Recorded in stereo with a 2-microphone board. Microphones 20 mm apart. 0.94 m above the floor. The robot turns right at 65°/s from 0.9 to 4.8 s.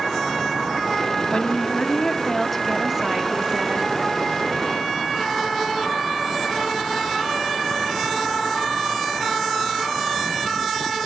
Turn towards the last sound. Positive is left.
turn(degrees=-45)